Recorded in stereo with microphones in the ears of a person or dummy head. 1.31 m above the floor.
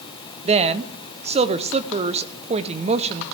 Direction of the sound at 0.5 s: 25° right (ahead or behind).